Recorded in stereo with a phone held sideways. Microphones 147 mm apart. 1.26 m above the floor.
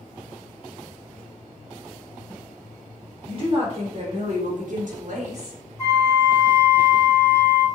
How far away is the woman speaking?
About 1.2 m.